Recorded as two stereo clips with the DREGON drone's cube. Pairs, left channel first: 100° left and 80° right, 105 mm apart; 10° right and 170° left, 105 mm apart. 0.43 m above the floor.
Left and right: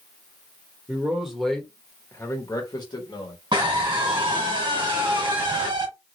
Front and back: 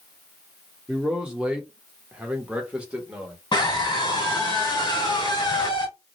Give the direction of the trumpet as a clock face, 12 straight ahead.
I don't hear a trumpet.